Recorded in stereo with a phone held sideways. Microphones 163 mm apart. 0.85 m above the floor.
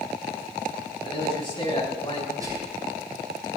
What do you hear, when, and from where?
1.0 s a man speaking: 30° left (ahead or behind), 5.5 m
2.4 s whispering: 20° right (ahead or behind), 9.5 m